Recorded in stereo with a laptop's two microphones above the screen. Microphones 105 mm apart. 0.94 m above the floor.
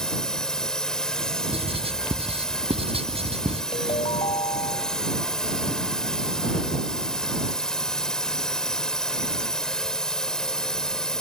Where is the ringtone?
70° left (ahead or behind).